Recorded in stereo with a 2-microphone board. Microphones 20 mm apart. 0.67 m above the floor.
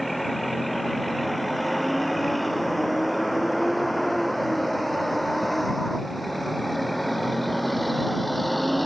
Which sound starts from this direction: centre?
A vehicle, at 0.0 s.